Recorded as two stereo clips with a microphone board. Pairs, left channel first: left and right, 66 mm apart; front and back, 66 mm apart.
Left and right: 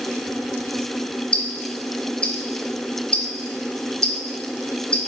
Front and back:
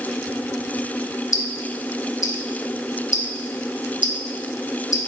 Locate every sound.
1.3 s ticking: 20° left, 0.7 m